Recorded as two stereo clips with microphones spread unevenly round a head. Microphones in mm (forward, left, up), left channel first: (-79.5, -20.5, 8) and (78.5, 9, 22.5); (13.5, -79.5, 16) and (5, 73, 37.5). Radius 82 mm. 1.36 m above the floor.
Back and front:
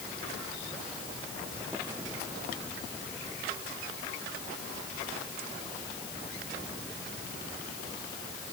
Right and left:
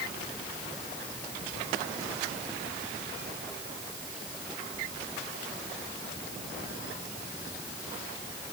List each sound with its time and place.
Only background noise.